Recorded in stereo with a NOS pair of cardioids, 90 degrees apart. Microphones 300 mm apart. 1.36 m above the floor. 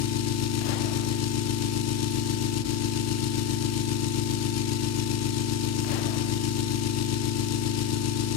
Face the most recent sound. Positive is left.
turn(degrees=60)